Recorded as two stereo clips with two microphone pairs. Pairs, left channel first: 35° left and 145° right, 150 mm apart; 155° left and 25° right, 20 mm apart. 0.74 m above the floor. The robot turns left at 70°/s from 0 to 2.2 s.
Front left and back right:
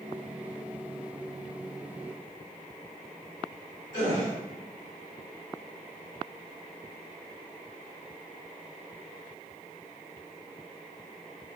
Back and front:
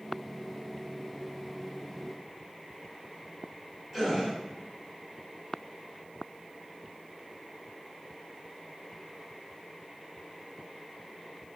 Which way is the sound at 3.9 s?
100° right.